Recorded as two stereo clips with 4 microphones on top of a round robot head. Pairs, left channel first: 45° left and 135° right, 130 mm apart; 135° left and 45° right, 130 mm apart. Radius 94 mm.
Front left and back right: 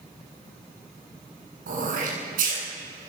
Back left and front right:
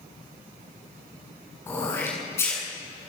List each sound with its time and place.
1.7 s throat clearing: 155° right, 8 m